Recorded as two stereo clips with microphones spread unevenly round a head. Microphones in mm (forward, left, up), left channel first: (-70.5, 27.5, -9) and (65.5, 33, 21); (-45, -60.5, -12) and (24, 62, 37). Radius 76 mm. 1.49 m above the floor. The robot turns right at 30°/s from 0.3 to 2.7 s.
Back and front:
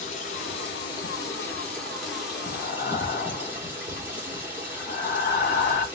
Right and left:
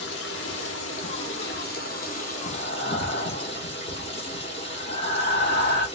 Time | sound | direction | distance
0.0 | running water | 130° right | 0.8 m
2.4 | breathing | 155° right | 0.9 m